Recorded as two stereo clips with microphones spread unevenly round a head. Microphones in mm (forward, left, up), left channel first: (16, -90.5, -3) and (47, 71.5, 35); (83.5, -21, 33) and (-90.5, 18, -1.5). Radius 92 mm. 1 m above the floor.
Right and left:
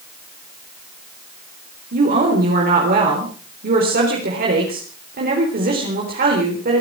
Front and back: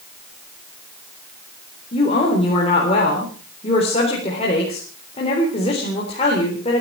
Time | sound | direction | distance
1.9 | a woman speaking | 45° left | 4 m